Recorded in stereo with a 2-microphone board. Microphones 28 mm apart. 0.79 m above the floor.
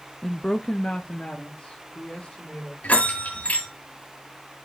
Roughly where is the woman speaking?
Centre.